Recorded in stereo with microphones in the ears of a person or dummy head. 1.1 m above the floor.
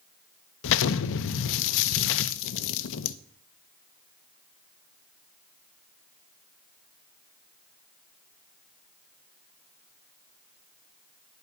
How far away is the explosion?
About 0.6 m.